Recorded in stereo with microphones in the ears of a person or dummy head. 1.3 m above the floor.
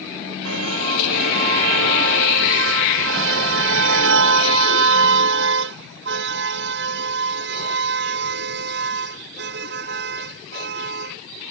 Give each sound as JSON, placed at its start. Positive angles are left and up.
{"t": 0.5, "sound": "a car horn", "side_deg": -85}